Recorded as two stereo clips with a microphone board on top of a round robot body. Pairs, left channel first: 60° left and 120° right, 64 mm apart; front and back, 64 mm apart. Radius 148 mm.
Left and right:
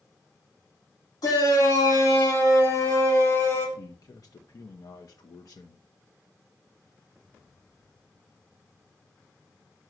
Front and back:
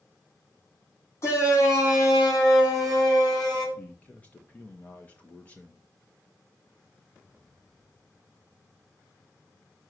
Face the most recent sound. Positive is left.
turn(degrees=65)